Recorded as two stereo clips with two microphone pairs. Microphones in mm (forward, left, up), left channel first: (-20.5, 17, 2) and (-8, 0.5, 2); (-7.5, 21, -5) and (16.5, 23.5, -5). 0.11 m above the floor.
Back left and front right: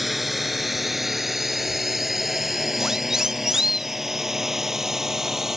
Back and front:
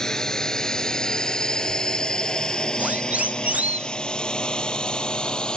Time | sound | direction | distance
0.0 | a drone | 135° right | ?
2.8 | a siren | 5° left | ?